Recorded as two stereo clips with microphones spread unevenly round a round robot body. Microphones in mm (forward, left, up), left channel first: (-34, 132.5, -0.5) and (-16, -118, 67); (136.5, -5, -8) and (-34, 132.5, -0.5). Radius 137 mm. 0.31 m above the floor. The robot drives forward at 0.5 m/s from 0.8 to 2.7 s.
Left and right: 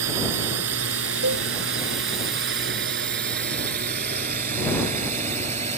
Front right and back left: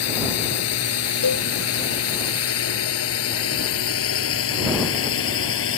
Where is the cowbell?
40° right.